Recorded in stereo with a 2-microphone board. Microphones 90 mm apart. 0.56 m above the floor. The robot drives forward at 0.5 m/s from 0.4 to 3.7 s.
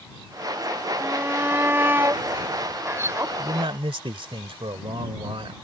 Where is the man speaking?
65° right (ahead or behind).